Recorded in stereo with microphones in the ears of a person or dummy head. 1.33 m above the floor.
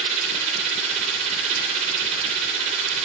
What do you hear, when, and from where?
0.0 s a machine running: 30° right (ahead or behind), 0.9 m